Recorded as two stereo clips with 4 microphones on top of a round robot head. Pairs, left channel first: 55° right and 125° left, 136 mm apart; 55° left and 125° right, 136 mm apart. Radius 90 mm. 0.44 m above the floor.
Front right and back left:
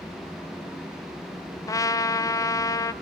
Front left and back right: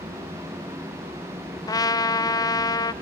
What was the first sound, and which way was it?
A trumpet, 5° left.